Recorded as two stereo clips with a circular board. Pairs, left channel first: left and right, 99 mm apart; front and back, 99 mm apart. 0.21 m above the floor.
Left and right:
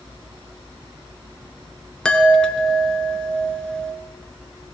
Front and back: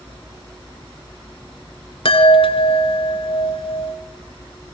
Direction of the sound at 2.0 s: 10° left.